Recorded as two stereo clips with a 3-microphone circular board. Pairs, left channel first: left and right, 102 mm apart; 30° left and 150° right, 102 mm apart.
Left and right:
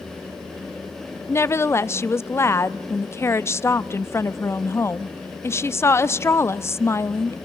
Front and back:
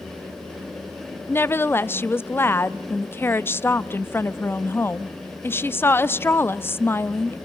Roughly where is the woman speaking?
Left.